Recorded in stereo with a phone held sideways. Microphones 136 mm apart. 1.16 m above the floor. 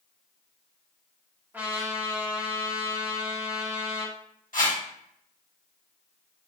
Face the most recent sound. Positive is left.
turn(degrees=75)  # may be behind; listen again after turning